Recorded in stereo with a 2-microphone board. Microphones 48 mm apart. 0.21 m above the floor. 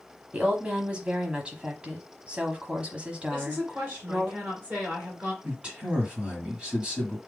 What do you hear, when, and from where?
0.3 s a woman speaking: 25° right (ahead or behind), 1.1 m
3.3 s a woman speaking: 30° right (ahead or behind), 1.8 m
5.4 s a man speaking: 25° right (ahead or behind), 1.6 m